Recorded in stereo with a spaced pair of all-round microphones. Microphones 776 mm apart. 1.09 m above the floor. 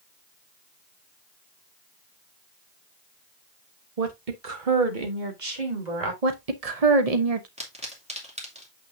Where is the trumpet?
I don't hear a trumpet.